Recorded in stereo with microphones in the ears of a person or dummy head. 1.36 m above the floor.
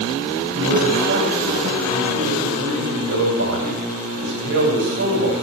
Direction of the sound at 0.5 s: 60° right (ahead or behind).